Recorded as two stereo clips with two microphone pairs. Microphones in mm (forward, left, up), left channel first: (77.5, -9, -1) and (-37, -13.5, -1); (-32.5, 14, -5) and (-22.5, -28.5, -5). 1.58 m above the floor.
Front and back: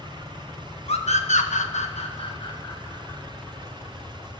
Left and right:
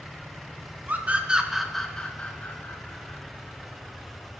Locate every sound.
0.9 s a scream: 30° right, 1.6 m; by 3.2 s 65° left, 2.5 m